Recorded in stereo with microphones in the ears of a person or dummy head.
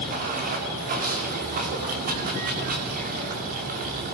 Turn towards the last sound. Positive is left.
turn(degrees=-45)  # may be behind; listen again after turning